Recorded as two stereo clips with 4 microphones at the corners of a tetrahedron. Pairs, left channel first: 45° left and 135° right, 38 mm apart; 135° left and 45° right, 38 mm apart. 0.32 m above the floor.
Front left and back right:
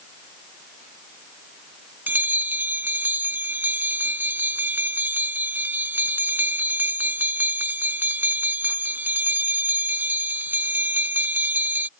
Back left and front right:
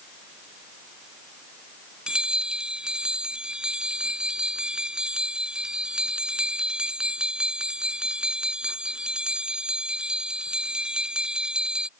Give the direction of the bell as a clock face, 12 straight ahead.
4 o'clock.